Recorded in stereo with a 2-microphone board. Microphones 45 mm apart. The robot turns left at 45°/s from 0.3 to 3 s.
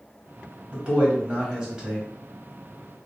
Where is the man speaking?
105° right, 1.4 m; by 2.1 s 165° right, 1.4 m.